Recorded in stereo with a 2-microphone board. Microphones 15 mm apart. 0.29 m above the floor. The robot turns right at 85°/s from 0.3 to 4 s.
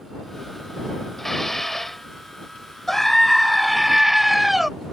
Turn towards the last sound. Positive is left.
turn(degrees=-10)  # may be behind; listen again after turning